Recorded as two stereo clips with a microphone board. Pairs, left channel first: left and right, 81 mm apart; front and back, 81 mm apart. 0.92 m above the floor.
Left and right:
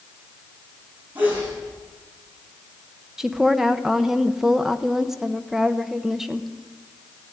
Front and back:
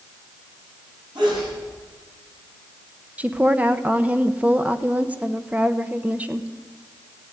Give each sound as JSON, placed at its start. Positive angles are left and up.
{"t": 1.1, "sound": "a sneeze", "azimuth_deg": -160, "distance_m": 8.0}
{"t": 3.2, "sound": "a woman speaking", "azimuth_deg": -165, "distance_m": 0.7}